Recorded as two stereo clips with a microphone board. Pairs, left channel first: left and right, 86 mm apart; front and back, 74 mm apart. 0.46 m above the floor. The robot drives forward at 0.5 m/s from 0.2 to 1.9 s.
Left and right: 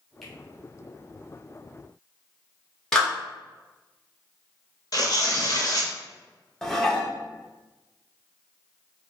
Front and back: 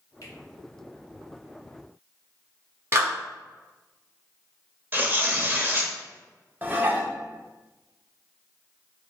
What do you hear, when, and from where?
0.2 s a finger snap: 5° left, 1.0 m; by 0.3 s 10° left, 1.0 m
2.9 s a clap: 170° left, 1.2 m
4.9 s tearing paper: 120° left, 0.7 m
6.6 s dishes clattering: 170° left, 0.6 m